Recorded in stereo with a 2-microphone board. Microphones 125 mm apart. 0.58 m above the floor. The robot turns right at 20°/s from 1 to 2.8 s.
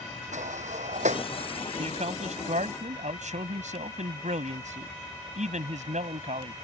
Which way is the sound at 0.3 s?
75° right (ahead or behind).